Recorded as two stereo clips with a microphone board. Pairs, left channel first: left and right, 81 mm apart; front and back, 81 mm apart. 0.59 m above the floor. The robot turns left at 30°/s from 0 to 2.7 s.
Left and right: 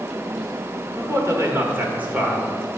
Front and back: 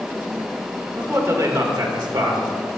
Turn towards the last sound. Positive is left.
turn(degrees=180)